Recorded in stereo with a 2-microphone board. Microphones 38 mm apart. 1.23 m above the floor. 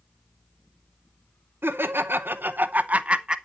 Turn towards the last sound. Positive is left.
turn(degrees=-25)  # may be behind; listen again after turning